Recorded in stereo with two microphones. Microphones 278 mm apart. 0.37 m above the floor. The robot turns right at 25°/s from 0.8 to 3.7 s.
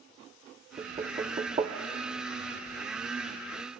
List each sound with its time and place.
0.8 s knocking: 25° right (ahead or behind), 0.5 m